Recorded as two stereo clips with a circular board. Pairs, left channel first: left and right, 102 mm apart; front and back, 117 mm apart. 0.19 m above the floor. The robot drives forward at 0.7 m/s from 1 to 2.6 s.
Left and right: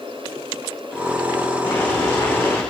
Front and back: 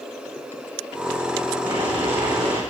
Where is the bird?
No bird in this recording.